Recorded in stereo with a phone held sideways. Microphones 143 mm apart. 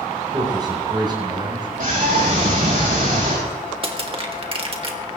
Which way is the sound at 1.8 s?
70° right (ahead or behind).